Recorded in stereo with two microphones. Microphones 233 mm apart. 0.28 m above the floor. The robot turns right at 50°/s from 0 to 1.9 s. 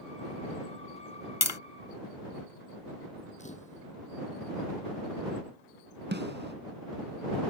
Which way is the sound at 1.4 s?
80° left.